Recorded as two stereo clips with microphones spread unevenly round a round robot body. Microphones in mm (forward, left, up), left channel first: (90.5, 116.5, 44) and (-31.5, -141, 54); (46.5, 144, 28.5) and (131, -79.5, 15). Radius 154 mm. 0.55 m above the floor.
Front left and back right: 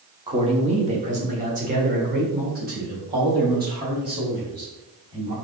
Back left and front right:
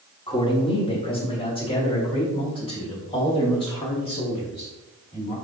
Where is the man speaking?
175° left, 1.1 m; by 5.3 s 175° right, 4 m.